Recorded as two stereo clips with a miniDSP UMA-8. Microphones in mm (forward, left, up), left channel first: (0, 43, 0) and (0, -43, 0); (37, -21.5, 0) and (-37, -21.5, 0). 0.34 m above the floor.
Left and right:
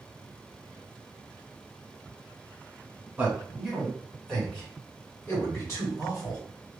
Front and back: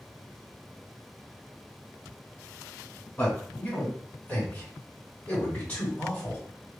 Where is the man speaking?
30° right, 1.6 m; by 6.4 s 65° left, 2 m.